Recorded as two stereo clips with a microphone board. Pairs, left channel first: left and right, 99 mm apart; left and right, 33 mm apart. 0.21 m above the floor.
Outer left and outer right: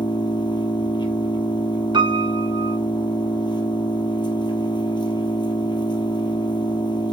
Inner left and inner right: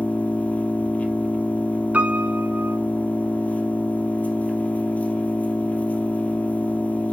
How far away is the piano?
About 0.9 m.